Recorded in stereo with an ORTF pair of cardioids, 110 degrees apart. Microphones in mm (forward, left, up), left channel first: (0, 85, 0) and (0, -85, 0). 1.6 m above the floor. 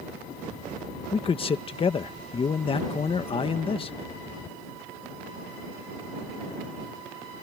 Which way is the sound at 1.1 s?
35° left.